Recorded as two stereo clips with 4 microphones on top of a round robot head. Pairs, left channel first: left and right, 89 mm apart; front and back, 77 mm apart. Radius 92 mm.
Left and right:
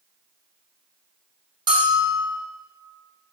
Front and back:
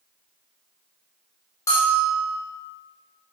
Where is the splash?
No splash in this recording.